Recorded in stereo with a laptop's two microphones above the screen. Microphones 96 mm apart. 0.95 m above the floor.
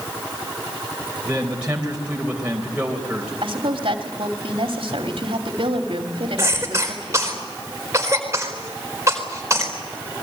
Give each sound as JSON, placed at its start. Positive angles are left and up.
{"t": 1.2, "sound": "a man speaking", "side_deg": -10, "distance_m": 3.5}
{"t": 3.4, "sound": "a woman speaking", "side_deg": -70, "distance_m": 2.5}
{"t": 6.4, "sound": "a cough", "side_deg": -30, "distance_m": 4.0}